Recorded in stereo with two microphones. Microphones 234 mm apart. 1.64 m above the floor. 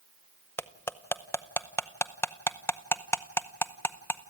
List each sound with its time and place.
0.6 s cutlery clinking: 10° left (ahead or behind), 0.7 m